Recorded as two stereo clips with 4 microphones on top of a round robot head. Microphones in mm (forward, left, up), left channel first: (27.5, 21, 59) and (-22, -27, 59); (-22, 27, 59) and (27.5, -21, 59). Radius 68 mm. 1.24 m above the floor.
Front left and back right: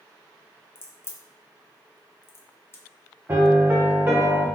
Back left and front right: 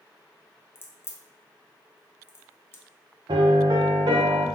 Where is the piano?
70° right, 0.6 m.